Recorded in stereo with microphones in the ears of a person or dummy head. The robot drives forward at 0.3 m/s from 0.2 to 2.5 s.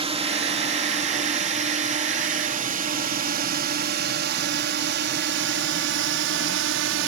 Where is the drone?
25° right (ahead or behind); by 7.1 s 70° right (ahead or behind).